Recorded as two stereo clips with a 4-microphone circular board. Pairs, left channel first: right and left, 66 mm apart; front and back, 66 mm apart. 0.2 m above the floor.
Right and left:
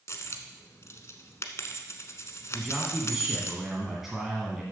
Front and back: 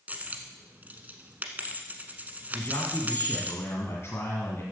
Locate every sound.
0.1 s a dropped coin: 120° right, 1.0 m
2.5 s a man speaking: 5° left, 2.0 m